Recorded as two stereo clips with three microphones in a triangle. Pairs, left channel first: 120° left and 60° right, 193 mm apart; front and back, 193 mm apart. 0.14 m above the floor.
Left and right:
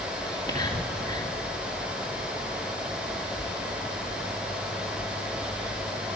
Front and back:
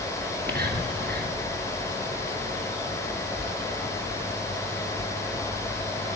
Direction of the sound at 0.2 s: 175° right.